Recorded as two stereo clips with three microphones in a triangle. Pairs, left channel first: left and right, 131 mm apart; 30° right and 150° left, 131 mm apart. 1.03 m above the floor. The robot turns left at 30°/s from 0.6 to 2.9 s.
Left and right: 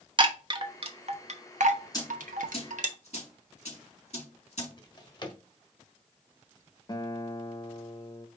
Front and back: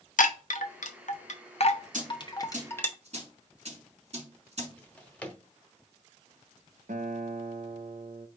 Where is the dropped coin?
145° left, 3 m; by 4.7 s 120° left, 3 m.